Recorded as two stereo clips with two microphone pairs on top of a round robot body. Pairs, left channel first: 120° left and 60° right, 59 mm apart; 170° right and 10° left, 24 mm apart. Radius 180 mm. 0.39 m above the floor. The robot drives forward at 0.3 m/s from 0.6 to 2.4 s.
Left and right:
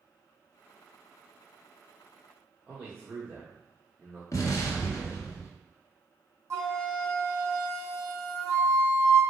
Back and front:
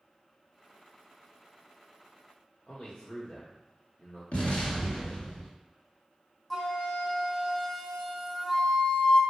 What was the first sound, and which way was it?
A man speaking, 125° right.